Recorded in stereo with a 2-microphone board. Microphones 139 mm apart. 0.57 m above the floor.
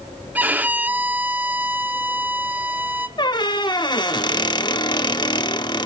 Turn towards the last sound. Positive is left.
turn(degrees=35)  # may be behind; listen again after turning